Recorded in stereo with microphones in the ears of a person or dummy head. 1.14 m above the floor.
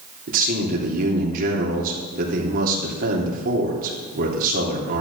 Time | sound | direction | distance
0.3 | a man speaking | 50° right (ahead or behind) | 3 m